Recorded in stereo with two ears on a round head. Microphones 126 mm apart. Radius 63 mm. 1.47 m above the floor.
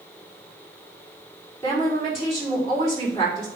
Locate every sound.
1.6 s a woman speaking: 20° left (ahead or behind), 4.5 m